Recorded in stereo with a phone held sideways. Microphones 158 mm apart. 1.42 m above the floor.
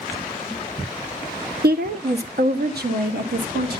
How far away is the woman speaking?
About 0.8 m.